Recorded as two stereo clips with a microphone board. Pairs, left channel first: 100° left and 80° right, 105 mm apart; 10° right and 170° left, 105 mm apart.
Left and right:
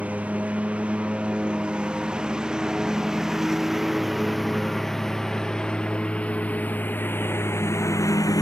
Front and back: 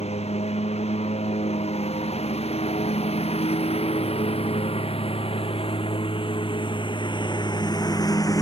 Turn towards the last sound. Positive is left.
turn(degrees=45)